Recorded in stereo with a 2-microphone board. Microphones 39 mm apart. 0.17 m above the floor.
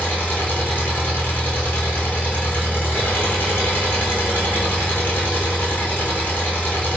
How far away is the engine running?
About 1.2 m.